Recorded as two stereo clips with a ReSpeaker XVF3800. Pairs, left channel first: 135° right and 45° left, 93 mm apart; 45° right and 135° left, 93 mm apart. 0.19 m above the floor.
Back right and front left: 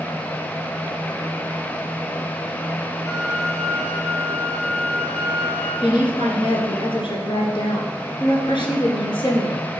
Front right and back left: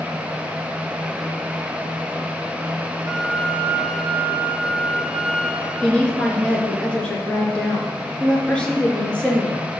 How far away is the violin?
About 5.5 m.